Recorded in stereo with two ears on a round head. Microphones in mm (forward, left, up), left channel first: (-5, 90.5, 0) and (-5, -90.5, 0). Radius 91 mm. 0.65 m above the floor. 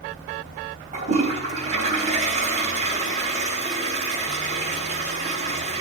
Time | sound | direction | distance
0.9 | a toilet flushing | 35° right (ahead or behind) | 3.5 m